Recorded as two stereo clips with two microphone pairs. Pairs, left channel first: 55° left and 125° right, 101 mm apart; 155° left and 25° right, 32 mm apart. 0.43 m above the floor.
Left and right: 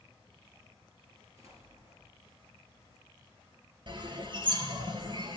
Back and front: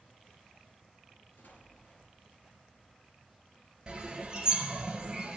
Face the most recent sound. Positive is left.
turn(degrees=-85)